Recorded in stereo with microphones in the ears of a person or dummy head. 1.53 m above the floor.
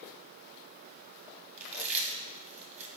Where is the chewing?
30° right (ahead or behind), 1.9 m.